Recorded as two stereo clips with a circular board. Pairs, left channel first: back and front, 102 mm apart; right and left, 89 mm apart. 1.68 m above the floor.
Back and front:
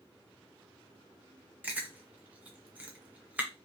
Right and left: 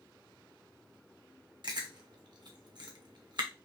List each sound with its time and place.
1.6 s chewing: 70° left, 0.8 m